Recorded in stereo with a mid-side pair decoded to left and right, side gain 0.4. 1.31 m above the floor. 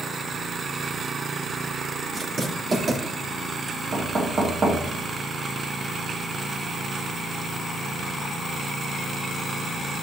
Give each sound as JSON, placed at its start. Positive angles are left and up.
{"t": 2.1, "sound": "writing", "azimuth_deg": -50, "distance_m": 3.5}
{"t": 3.9, "sound": "knocking", "azimuth_deg": -50, "distance_m": 2.5}